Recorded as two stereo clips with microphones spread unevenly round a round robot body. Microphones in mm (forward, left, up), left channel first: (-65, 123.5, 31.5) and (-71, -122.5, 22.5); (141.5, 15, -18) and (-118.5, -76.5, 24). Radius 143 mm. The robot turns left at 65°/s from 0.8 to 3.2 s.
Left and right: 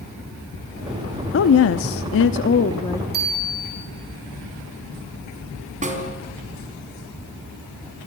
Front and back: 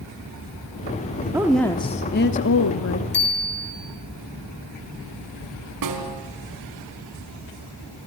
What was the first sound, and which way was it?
A woman speaking, 115° left.